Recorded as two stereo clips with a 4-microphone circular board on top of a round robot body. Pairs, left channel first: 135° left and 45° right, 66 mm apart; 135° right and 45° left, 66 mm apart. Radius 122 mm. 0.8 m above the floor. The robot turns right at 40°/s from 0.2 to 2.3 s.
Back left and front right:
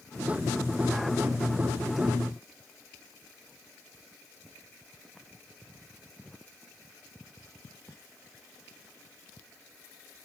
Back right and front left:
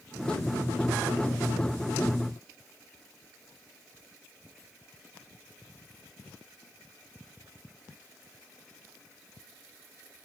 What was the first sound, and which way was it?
Only background noise.